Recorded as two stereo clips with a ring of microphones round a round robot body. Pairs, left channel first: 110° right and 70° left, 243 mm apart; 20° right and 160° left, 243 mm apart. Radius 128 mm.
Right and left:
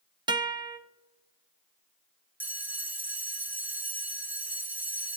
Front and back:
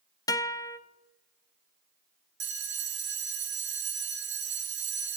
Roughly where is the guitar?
Ahead left.